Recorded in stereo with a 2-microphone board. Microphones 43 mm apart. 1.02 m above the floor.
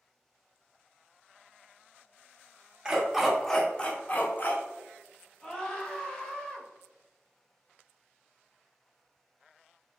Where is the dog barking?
15° right (ahead or behind), 0.7 m; by 4.6 s 45° left (ahead or behind), 0.8 m.